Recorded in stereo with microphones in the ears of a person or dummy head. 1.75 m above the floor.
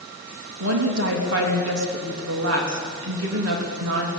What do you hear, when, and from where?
0.6 s a woman speaking: 75° right (ahead or behind), 3.5 m